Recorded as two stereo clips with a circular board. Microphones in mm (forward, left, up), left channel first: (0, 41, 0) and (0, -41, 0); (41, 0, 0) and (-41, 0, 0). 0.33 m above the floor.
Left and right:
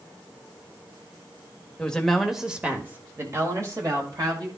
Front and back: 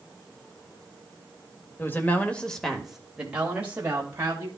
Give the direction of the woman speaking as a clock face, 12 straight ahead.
11 o'clock.